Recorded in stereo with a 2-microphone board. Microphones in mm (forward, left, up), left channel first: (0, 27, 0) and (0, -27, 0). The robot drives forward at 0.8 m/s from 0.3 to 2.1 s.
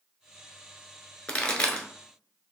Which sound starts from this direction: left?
A pop, at 1.3 s.